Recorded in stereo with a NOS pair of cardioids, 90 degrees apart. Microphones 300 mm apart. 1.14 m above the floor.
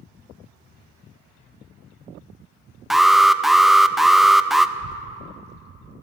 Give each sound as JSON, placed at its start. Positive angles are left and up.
{"t": 2.9, "sound": "an alarm", "azimuth_deg": 0, "distance_m": 0.5}
{"t": 4.8, "sound": "a child speaking", "azimuth_deg": -35, "distance_m": 0.6}